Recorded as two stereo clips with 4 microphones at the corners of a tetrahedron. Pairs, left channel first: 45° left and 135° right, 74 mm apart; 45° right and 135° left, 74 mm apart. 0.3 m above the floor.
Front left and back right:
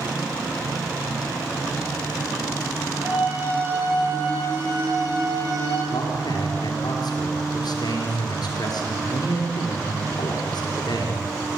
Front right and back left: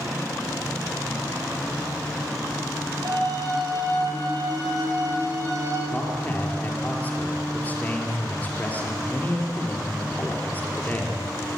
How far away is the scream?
About 8 m.